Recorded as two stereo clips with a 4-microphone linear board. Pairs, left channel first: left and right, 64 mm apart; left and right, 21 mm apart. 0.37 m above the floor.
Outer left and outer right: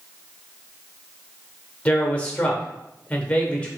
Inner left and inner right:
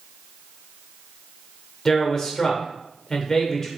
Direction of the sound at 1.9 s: 25° left (ahead or behind).